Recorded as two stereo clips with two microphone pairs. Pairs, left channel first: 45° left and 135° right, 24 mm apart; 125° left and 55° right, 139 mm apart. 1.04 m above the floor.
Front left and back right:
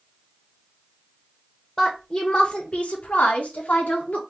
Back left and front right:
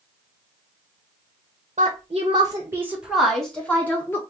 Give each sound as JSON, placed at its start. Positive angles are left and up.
{"t": 1.8, "sound": "a woman speaking", "azimuth_deg": -30, "distance_m": 0.8}